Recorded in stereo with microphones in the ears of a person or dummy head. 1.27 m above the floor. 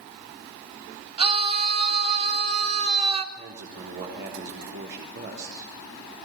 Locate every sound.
1.2 s a scream: 30° right (ahead or behind), 2.5 m
3.4 s a man speaking: 55° right (ahead or behind), 3.5 m